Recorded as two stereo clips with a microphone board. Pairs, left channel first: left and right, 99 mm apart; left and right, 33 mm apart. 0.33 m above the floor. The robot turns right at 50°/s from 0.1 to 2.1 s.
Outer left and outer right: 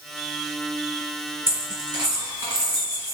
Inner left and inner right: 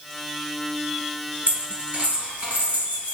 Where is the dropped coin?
70° right (ahead or behind), 1.6 m; by 3.1 s 40° right (ahead or behind), 1.6 m.